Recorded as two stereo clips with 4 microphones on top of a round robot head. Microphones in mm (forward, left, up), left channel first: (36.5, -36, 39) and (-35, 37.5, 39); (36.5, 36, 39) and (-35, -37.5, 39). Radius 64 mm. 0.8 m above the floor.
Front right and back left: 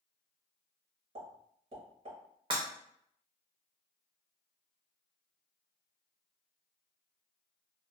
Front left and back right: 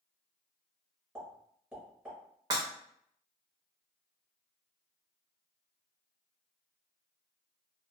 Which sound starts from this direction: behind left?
A pop, at 1.1 s.